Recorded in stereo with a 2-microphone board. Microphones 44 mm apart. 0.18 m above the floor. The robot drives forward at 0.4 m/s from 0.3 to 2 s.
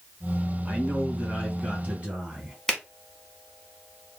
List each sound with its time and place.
0.7 s a man speaking: 25° right (ahead or behind), 1.8 m; by 2.6 s 30° right (ahead or behind), 1.6 m
2.7 s a finger snap: 15° left (ahead or behind), 0.9 m